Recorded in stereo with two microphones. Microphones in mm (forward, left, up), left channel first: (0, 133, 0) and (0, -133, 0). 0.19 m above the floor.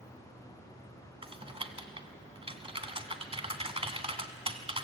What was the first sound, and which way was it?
Typing on a keyboard, 20° right (ahead or behind).